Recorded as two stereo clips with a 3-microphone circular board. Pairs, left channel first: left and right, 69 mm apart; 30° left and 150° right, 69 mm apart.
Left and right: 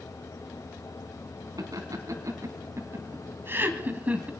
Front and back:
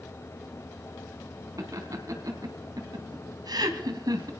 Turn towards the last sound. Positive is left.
turn(degrees=-160)